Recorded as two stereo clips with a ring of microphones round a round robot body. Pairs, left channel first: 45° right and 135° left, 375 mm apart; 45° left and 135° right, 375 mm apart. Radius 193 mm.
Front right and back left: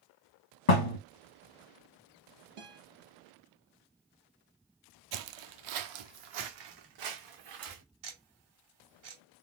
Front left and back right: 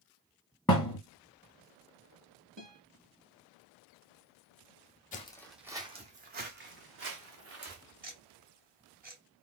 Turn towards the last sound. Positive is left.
turn(degrees=160)